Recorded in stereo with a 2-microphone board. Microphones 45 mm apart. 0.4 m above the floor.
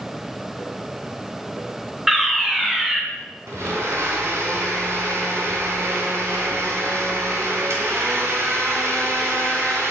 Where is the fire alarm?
10° right (ahead or behind), 1.7 m.